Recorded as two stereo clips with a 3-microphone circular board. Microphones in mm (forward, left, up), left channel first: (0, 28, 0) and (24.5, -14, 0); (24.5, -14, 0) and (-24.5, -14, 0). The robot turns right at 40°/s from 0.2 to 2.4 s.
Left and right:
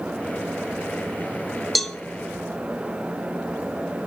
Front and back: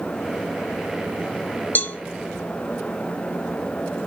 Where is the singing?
No singing in this recording.